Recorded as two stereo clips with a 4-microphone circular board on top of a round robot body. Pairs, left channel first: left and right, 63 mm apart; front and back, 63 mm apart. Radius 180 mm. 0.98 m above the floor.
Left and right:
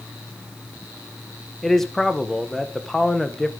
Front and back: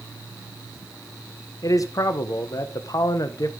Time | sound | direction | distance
1.6 | a man speaking | 5° left | 1.1 m